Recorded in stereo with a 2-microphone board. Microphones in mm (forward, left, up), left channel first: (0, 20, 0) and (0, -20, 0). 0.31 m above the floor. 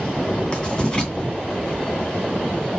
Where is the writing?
25° left (ahead or behind), 3 m.